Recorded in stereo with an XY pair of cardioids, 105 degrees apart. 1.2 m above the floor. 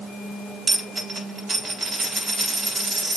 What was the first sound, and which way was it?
A dropped coin, 40° right.